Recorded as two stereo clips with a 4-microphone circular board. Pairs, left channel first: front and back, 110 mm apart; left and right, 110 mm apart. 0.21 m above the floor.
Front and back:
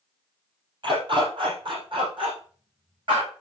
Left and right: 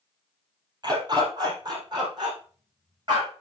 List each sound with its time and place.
0.8 s a dog barking: 140° right, 2.5 m